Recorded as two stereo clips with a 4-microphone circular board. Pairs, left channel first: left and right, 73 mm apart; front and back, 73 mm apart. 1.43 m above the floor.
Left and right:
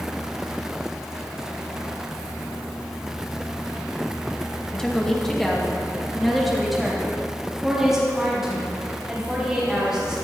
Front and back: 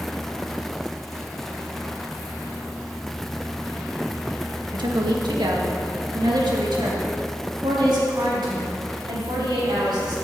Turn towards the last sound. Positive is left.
turn(degrees=-170)